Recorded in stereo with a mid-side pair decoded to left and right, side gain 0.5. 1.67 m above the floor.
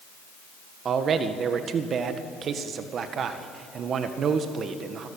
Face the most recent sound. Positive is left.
turn(degrees=-50)